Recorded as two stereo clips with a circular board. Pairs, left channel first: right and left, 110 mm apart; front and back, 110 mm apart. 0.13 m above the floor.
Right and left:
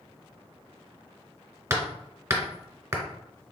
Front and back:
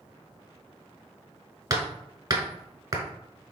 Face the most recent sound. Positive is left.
turn(degrees=145)